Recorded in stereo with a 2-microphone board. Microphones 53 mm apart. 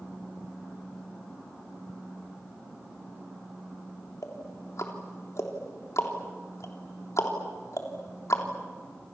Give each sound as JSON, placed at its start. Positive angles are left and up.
{"t": 4.2, "sound": "ticking", "side_deg": 65, "distance_m": 3.5}